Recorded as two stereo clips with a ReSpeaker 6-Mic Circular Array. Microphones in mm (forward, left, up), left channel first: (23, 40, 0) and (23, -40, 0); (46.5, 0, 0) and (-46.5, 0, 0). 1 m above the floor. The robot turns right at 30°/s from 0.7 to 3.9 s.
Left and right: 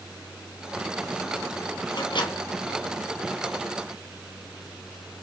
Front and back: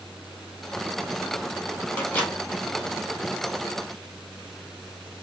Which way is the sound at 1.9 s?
65° left.